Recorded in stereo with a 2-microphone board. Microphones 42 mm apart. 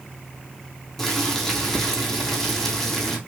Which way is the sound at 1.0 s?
10° left (ahead or behind).